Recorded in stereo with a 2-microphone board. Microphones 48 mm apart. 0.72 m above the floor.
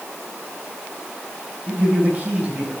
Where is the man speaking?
35° right (ahead or behind), 4 m.